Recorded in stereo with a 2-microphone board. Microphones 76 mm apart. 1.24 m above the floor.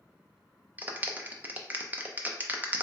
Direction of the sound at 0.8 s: 25° right (ahead or behind).